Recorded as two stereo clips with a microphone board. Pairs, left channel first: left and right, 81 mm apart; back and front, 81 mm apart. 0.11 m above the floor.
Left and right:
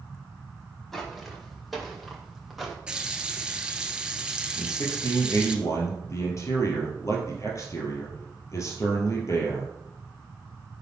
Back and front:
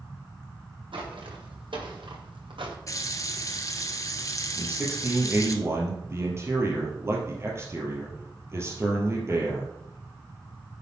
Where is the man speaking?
50° left, 3 m.